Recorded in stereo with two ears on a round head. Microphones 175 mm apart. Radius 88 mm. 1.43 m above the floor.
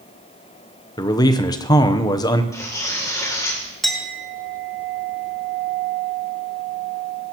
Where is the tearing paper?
15° left (ahead or behind), 2.5 m.